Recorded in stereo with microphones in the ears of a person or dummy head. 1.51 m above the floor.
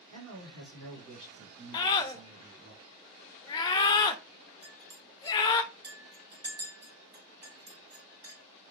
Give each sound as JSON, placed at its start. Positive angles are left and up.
{"t": 0.1, "sound": "a man speaking", "side_deg": -75, "distance_m": 1.5}
{"t": 1.7, "sound": "a scream", "side_deg": 20, "distance_m": 0.5}
{"t": 4.6, "sound": "a clink", "side_deg": -25, "distance_m": 1.1}